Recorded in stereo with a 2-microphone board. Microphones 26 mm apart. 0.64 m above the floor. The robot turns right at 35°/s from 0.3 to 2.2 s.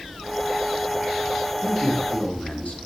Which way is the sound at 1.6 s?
55° left (ahead or behind).